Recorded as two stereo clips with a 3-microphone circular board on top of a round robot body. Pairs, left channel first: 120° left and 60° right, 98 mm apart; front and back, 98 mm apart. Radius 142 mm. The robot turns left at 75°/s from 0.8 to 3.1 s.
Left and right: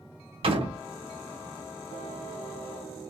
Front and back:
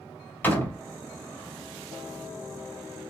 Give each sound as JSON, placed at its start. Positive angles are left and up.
{"t": 0.4, "sound": "a door slam", "azimuth_deg": -70, "distance_m": 1.8}